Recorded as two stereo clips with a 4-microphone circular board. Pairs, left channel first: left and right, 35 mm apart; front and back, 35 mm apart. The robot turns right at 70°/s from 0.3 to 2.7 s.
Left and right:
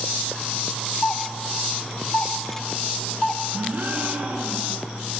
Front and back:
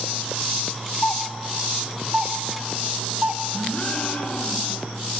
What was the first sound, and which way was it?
A doorbell, 35° left.